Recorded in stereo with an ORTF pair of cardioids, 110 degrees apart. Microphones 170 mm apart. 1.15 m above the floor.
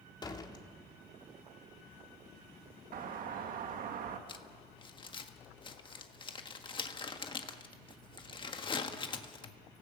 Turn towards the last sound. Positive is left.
turn(degrees=30)